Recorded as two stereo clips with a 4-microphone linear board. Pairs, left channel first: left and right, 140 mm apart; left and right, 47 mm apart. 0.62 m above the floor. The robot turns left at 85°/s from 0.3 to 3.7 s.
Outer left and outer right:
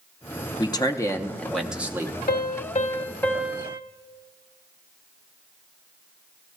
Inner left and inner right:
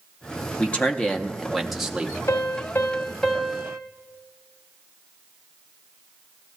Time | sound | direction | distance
0.6 | a man speaking | 25° left (ahead or behind) | 0.7 m
2.3 | a piano | 90° left | 1.0 m